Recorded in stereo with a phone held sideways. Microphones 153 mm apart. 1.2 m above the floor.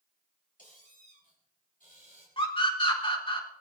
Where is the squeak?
60° left (ahead or behind), 6 m.